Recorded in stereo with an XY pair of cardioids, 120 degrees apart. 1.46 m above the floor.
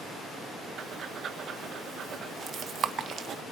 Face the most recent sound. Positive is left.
turn(degrees=-50)